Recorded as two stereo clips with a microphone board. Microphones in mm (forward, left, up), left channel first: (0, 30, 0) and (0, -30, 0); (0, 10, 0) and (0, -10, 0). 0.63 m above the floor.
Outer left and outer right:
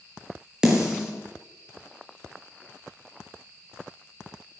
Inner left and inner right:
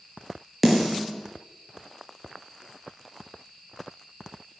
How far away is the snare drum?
About 5 m.